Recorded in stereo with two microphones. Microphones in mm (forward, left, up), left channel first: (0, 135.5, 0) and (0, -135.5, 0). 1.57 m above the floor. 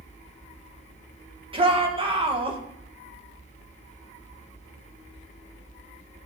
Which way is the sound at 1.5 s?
20° right (ahead or behind).